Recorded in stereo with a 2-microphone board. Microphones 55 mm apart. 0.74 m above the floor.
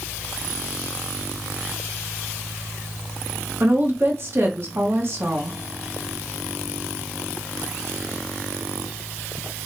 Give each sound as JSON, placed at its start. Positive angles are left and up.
{"t": 3.6, "sound": "a woman speaking", "side_deg": -50, "distance_m": 1.1}